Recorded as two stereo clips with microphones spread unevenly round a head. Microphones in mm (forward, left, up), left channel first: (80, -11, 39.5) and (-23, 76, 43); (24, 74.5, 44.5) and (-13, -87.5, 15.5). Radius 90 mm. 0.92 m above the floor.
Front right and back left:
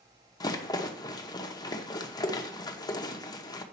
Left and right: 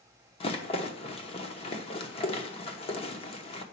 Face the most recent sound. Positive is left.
turn(degrees=20)